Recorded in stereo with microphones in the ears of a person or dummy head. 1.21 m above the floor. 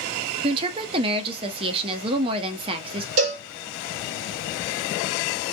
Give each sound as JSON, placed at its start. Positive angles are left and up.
{"t": 0.4, "sound": "a woman speaking", "side_deg": -30, "distance_m": 0.6}
{"t": 3.2, "sound": "a cowbell", "side_deg": -50, "distance_m": 1.6}